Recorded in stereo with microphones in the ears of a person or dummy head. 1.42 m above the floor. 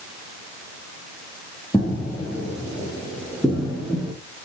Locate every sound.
1.7 s footsteps: 20° left (ahead or behind), 3.5 m; by 4.1 s centre (ahead or behind), 3.5 m